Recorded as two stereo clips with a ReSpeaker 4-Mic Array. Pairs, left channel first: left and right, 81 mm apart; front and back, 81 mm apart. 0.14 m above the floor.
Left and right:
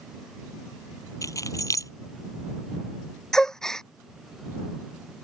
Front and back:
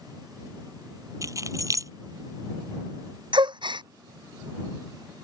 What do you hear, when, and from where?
1.2 s keys jangling: 135° left
3.3 s a gasp: 175° left